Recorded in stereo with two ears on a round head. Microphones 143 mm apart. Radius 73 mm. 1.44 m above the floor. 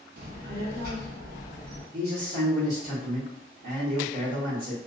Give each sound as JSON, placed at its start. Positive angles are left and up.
{"t": 0.2, "sound": "a child speaking", "side_deg": -60, "distance_m": 0.7}
{"t": 1.9, "sound": "a man speaking", "side_deg": -80, "distance_m": 1.2}